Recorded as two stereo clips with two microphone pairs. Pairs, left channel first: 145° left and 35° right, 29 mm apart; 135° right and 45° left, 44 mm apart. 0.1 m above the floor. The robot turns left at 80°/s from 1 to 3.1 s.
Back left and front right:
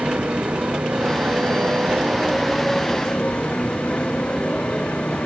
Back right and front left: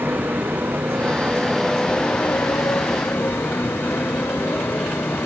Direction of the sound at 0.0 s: Straight ahead.